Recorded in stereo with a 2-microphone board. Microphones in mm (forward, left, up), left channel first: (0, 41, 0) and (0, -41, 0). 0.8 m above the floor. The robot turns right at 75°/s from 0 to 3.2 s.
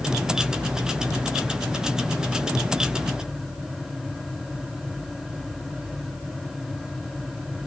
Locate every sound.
Only background noise.